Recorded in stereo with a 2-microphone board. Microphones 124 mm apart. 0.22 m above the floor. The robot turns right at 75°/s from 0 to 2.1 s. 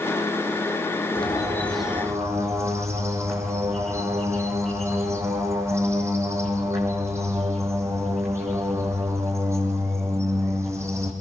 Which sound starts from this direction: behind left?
A bird, at 1.1 s.